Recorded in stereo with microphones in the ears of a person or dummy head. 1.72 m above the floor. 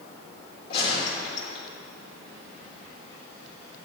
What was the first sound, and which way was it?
A gunshot, 30° left (ahead or behind).